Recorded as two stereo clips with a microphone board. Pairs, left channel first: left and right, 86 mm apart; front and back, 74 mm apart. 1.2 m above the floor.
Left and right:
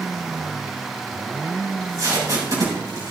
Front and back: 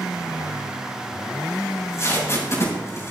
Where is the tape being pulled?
45° right, 5.5 m.